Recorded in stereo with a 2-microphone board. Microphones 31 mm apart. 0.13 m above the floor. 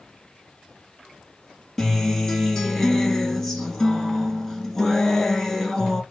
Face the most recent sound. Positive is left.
turn(degrees=10)  # may be behind; listen again after turning